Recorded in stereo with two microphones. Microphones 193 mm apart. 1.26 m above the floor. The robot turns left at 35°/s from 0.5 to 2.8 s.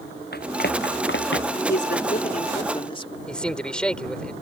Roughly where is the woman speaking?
Ahead left.